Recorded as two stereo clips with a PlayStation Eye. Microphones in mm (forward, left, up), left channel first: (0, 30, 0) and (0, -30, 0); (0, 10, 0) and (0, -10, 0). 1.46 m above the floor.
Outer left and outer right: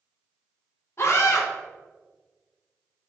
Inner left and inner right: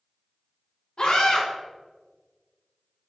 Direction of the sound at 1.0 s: 50° left (ahead or behind).